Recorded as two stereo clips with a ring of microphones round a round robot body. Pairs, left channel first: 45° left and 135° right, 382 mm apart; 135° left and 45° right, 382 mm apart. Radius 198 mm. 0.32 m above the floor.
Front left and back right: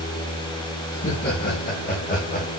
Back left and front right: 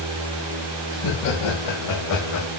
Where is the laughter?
110° left, 3 m; by 2.5 s 105° left, 1.8 m.